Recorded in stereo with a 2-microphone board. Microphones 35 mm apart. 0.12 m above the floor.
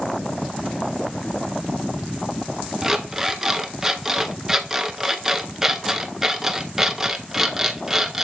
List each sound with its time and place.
2.8 s an alarm clock: 15° right (ahead or behind), 0.6 m